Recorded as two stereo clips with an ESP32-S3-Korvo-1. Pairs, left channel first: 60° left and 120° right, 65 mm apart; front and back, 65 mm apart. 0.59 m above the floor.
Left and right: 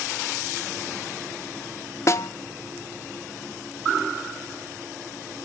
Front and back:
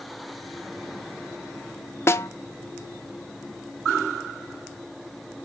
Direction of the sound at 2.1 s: 35° left.